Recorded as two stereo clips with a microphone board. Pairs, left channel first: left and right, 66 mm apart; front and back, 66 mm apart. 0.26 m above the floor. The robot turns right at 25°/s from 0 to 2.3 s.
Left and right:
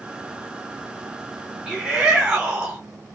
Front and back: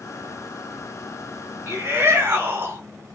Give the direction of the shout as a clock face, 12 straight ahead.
6 o'clock.